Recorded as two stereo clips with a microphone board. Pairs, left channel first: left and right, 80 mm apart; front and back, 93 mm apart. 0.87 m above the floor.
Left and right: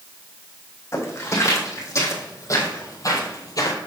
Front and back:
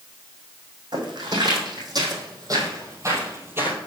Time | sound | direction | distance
0.9 | footsteps | 145° left | 3 m